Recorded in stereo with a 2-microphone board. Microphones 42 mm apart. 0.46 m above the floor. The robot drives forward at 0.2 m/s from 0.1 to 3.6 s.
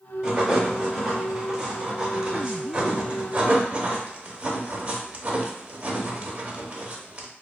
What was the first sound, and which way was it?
Writing, 20° right (ahead or behind).